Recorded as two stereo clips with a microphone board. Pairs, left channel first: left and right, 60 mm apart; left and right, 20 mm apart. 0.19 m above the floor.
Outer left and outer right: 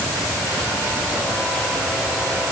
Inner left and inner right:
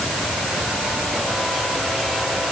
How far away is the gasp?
I don't hear a gasp.